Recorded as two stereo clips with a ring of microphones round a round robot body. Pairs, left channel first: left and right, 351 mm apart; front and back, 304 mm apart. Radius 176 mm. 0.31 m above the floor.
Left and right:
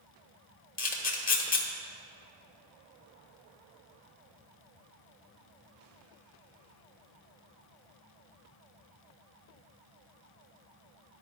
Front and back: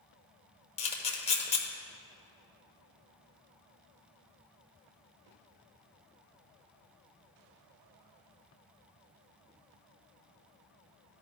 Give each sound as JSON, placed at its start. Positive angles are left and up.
{"t": 0.8, "sound": "a camera shutter", "azimuth_deg": 50, "distance_m": 1.0}